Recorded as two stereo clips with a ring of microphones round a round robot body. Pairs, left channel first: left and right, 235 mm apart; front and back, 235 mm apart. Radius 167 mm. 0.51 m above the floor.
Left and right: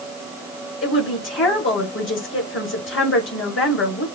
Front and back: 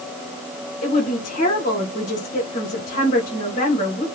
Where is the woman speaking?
65° left, 3 m.